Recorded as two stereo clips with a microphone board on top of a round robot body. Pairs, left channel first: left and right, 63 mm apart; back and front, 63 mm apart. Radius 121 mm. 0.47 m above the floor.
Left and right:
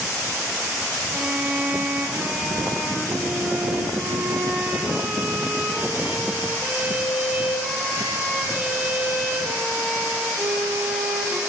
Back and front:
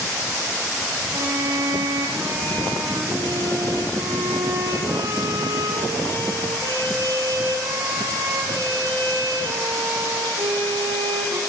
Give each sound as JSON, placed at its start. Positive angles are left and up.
{"t": 1.1, "sound": "a violin", "azimuth_deg": -20, "distance_m": 4.0}